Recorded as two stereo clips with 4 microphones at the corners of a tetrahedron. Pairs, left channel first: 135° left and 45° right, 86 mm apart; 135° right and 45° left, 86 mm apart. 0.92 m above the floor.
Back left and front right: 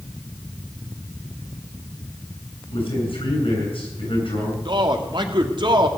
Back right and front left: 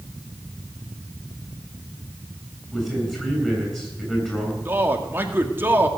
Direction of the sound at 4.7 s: 20° right.